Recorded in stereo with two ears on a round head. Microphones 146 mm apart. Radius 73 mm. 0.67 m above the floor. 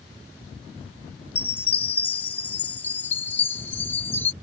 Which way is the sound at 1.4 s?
10° left (ahead or behind).